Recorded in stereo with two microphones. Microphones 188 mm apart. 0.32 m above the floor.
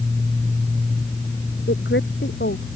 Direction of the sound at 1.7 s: 75° left (ahead or behind).